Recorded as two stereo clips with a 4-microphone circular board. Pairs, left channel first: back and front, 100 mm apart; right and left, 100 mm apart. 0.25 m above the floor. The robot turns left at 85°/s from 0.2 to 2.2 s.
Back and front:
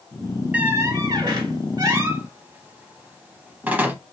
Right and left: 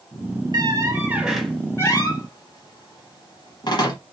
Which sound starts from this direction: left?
A squeak, at 0.5 s.